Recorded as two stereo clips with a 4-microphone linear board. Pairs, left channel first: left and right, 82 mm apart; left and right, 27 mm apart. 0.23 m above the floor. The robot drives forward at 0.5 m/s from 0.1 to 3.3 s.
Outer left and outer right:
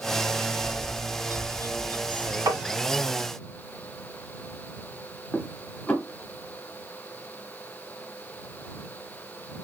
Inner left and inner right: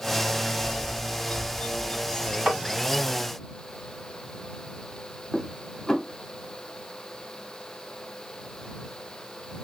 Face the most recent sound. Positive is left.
turn(degrees=15)  # may be behind; listen again after turning